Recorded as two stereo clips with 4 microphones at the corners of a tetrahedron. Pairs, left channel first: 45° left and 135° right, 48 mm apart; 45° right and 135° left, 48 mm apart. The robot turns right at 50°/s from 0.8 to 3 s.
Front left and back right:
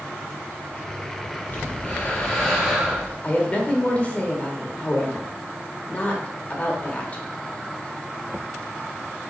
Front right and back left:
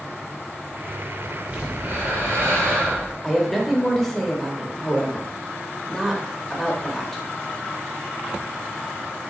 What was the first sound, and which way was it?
Breathing, 80° left.